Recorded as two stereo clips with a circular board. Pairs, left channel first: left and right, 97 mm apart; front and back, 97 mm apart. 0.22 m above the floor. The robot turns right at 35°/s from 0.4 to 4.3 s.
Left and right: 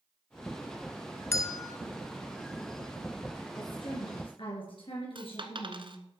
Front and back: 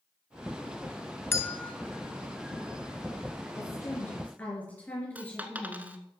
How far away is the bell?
About 0.7 m.